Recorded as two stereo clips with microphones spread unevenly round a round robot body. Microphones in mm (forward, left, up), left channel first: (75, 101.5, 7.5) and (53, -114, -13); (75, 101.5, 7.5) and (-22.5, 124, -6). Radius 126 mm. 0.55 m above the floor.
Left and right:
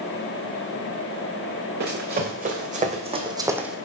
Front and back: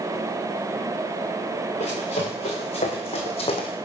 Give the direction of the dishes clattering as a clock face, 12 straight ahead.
I don't hear dishes clattering.